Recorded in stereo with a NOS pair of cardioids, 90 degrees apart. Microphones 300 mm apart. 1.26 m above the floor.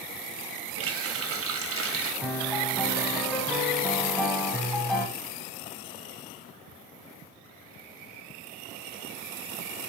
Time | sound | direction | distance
0.8 | a running tap | 50° right | 0.9 m
2.2 | a piano | straight ahead | 1.1 m